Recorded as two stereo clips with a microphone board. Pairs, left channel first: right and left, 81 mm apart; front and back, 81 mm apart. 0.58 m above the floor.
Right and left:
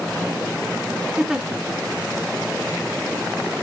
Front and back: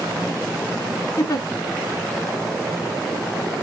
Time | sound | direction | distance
1.2 | a giggle | 10° left | 1.5 m